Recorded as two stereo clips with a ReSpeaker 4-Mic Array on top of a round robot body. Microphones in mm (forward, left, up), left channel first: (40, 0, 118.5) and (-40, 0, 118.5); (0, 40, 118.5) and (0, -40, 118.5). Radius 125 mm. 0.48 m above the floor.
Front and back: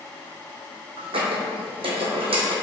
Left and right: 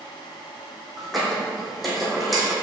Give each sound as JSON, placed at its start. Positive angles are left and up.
{"t": 1.0, "sound": "a squeak", "azimuth_deg": 180, "distance_m": 1.4}